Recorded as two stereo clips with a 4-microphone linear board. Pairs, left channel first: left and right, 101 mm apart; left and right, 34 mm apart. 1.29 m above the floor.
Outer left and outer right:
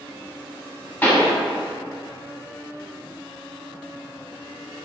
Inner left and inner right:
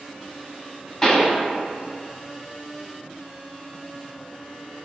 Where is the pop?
20° left (ahead or behind), 1.0 m.